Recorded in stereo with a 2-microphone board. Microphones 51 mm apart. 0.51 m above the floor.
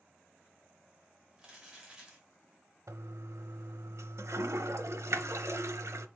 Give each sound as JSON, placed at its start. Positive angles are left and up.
{"t": 1.4, "sound": "crumpling", "side_deg": -15, "distance_m": 2.5}
{"t": 2.9, "sound": "a toilet flushing", "side_deg": -80, "distance_m": 0.7}